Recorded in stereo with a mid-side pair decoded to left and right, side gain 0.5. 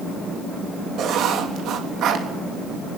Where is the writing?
65° right, 3.5 m.